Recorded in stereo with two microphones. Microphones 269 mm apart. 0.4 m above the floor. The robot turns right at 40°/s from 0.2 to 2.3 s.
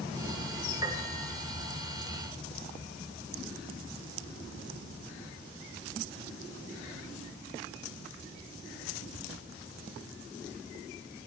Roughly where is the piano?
Centre.